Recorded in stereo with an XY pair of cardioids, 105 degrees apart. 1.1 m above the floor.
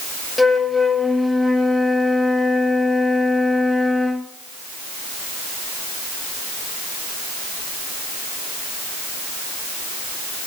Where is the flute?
10° left, 1.0 m.